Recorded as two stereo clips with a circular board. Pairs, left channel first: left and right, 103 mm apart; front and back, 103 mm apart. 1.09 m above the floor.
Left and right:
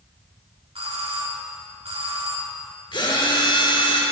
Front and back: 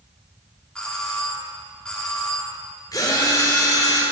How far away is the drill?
About 3 m.